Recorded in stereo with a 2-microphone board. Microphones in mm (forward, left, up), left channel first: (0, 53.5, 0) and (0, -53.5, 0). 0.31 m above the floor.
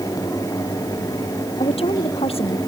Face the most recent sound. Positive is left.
turn(degrees=65)  # may be behind; listen again after turning